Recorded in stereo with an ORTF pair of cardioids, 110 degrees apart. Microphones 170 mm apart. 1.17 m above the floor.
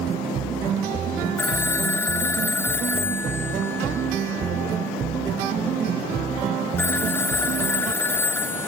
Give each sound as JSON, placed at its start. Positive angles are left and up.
{"t": 1.4, "sound": "a phone ringing", "azimuth_deg": 10}